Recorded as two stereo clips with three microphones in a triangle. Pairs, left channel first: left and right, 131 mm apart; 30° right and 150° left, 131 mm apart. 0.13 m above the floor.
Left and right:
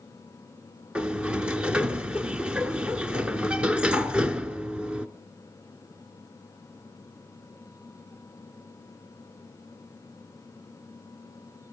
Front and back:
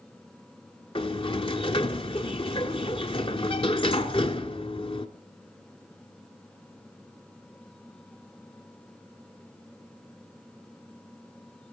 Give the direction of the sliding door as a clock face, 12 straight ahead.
12 o'clock.